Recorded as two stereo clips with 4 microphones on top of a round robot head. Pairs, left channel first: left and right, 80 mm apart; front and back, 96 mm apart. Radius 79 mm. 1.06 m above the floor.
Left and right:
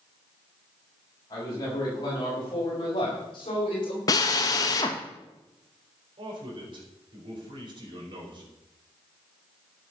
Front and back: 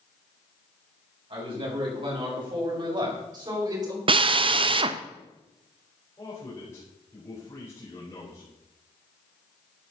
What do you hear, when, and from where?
1.3 s a man speaking: 150° left, 6.5 m; by 4.0 s 130° left, 5 m
4.1 s a drill: 145° left, 0.8 m
6.2 s a man speaking: 70° right, 4.5 m